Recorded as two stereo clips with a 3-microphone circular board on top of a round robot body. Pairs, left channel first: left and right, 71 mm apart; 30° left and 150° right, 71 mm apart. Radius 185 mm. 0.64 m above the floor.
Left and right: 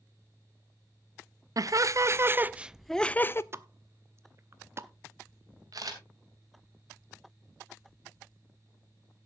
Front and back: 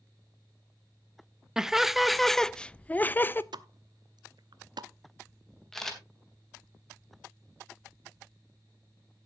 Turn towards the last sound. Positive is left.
turn(degrees=-55)